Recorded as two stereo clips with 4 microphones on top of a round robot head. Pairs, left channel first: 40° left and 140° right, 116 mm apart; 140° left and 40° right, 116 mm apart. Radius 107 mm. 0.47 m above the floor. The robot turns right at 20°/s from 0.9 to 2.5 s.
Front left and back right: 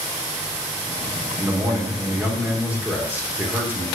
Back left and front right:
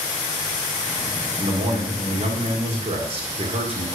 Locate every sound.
1.4 s a man speaking: 90° right, 2.0 m; by 3.9 s 65° right, 2.0 m